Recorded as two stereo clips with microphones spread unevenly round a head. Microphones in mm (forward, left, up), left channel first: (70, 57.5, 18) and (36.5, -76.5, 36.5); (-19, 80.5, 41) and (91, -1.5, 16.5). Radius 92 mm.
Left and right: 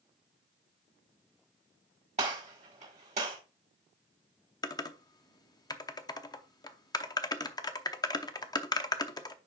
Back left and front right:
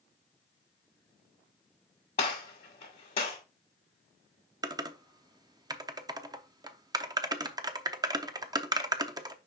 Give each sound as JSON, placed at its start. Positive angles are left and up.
{"t": 2.2, "sound": "a gunshot", "azimuth_deg": -160, "distance_m": 1.7}
{"t": 4.6, "sound": "typing on a keyboard", "azimuth_deg": 20, "distance_m": 0.7}